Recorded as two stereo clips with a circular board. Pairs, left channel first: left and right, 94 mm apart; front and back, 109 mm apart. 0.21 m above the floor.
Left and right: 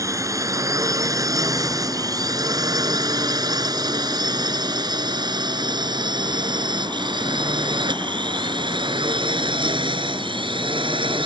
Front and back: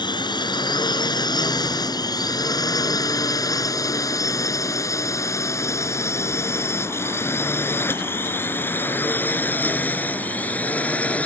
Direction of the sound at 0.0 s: 40° right.